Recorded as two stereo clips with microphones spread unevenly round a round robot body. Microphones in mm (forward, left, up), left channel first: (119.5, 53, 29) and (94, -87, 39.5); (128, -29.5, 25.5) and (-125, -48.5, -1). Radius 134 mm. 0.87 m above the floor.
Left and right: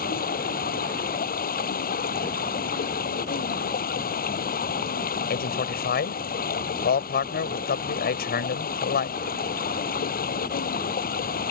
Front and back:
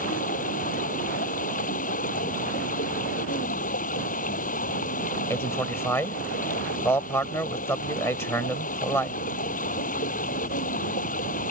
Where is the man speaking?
85° left.